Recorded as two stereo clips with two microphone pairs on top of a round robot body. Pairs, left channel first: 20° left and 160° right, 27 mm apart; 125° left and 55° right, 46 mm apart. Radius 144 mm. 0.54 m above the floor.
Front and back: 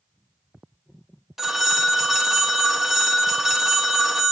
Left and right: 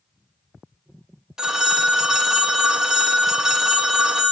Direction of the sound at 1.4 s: 60° right.